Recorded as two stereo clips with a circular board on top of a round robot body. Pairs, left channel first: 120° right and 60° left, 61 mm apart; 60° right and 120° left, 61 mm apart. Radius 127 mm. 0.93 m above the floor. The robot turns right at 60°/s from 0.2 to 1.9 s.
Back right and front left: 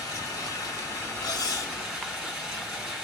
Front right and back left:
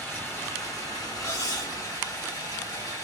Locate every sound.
0.0 s running water: 125° right, 2.5 m; by 3.0 s 25° right, 2.5 m
1.2 s cutlery clinking: 105° right, 0.6 m; by 1.8 s 75° right, 0.6 m